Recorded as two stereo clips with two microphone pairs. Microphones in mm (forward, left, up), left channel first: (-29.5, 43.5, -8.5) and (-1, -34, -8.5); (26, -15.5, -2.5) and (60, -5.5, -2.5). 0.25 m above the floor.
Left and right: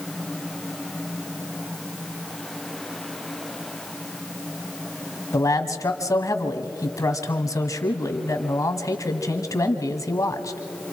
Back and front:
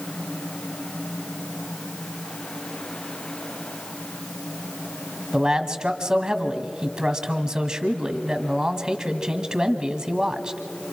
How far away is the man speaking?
About 1.4 m.